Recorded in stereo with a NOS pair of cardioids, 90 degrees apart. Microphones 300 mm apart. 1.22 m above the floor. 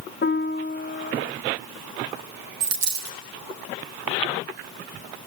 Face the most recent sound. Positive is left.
turn(degrees=-65)